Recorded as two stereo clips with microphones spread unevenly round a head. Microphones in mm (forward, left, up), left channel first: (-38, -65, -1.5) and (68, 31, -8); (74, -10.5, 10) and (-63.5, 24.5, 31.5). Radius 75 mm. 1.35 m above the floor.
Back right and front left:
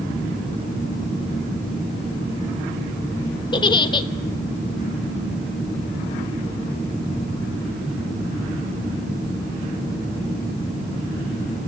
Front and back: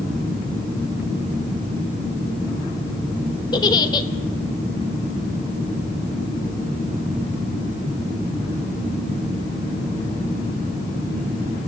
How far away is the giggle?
About 1.1 m.